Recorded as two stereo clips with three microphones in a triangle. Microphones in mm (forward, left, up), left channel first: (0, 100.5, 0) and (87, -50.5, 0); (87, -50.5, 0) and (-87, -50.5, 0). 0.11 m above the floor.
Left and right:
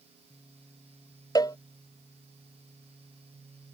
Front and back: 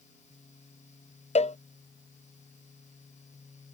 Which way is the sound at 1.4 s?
50° left.